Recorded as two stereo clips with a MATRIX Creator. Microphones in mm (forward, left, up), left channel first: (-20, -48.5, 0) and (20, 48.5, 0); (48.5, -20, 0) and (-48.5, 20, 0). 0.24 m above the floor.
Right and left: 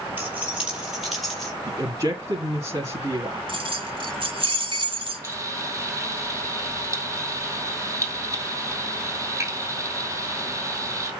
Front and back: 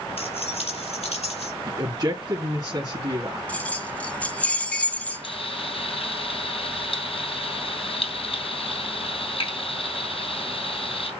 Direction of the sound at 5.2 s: 5° left.